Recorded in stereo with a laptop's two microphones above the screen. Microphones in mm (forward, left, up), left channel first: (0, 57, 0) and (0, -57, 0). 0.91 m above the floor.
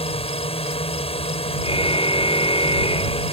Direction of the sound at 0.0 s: 60° left (ahead or behind).